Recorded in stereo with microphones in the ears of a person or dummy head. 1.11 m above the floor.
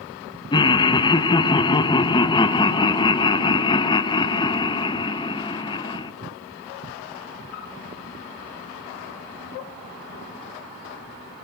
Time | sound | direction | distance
0.5 | laughter | 20° left (ahead or behind) | 0.6 m